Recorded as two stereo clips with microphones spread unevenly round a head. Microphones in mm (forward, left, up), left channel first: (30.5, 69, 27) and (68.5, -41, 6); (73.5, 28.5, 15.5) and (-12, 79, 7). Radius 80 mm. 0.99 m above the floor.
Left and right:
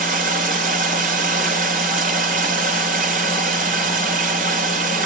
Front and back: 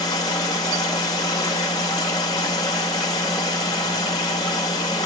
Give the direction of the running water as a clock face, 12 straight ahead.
3 o'clock.